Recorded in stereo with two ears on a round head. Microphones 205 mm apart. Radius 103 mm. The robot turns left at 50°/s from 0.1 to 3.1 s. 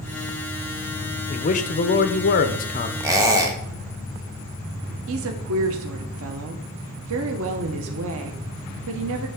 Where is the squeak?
15° right (ahead or behind), 0.9 m.